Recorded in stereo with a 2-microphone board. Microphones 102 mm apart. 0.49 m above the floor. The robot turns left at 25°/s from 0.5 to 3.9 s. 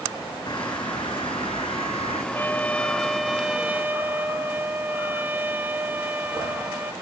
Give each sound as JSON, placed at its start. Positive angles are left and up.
{"t": 0.5, "sound": "a bird", "azimuth_deg": 135}
{"t": 2.3, "sound": "a trumpet", "azimuth_deg": 20}